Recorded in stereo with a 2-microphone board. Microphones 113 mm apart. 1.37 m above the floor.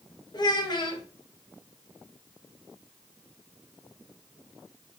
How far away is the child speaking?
About 0.7 m.